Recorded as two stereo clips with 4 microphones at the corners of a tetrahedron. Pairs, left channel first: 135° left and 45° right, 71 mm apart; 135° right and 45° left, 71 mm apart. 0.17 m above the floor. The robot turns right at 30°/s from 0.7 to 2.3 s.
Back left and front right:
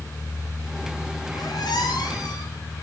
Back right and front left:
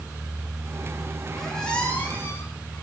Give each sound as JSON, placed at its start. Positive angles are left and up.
{"t": 1.3, "sound": "a squeak", "azimuth_deg": 135, "distance_m": 6.0}